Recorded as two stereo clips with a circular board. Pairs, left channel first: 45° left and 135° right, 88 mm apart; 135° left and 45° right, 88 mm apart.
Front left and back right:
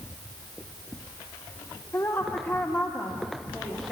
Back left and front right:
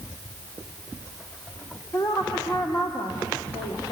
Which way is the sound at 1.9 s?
90° left.